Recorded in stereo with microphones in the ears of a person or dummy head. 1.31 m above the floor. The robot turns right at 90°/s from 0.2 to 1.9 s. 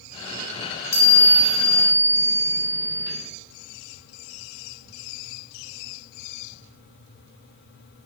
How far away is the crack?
No crack in this recording.